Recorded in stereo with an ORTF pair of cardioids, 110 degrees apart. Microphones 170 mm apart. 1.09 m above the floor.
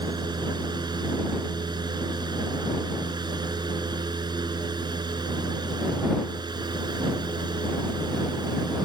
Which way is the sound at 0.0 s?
25° right.